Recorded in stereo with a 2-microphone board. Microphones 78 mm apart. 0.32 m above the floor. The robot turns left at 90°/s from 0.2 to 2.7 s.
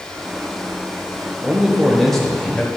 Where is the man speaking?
15° right (ahead or behind), 0.8 m; by 2.7 s 15° left (ahead or behind), 0.8 m.